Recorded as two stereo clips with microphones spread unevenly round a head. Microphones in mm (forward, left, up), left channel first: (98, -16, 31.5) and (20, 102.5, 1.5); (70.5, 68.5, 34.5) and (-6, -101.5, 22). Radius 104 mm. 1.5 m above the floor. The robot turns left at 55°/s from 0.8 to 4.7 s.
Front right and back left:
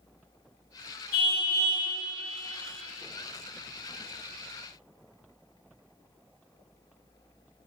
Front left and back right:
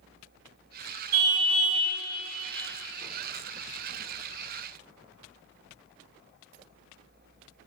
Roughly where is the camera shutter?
No camera shutter in this recording.